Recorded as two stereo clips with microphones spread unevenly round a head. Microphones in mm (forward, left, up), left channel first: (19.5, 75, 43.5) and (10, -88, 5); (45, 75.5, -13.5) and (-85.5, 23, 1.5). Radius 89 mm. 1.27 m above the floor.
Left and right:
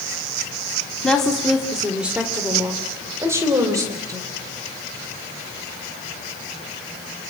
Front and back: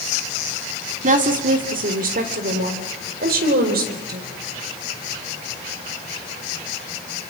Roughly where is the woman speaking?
Behind.